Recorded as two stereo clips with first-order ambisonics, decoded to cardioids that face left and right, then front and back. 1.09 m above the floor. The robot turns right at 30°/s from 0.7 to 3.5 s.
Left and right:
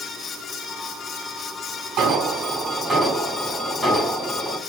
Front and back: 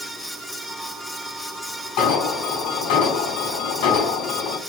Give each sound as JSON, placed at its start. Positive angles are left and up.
{"t": 2.0, "sound": "an alarm", "azimuth_deg": -40, "distance_m": 5.5}